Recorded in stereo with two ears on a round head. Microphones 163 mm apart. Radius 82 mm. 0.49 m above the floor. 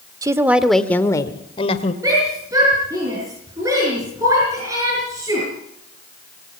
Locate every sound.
0.2 s a woman speaking: 20° right (ahead or behind), 1.4 m; by 1.9 s 40° left (ahead or behind), 2 m
2.0 s a shout: 20° right (ahead or behind), 6.5 m